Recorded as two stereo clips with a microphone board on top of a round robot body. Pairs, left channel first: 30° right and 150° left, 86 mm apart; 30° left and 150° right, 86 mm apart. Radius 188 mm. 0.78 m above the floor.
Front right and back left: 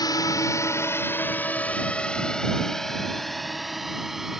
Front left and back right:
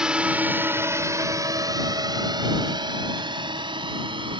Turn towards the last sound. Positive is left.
turn(degrees=-125)